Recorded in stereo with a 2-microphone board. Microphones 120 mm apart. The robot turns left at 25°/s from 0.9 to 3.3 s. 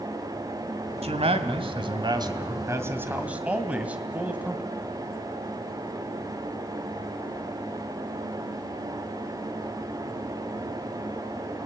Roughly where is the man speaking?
Right.